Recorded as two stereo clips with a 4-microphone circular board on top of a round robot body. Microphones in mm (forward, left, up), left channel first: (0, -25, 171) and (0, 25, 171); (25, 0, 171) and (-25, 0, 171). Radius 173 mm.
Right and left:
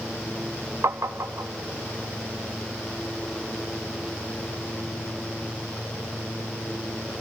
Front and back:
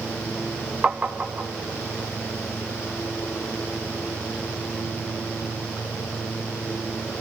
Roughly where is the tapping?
Behind left.